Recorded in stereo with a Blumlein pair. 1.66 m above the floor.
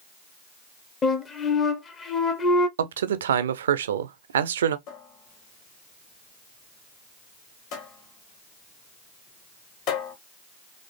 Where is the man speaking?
60° right, 0.6 m.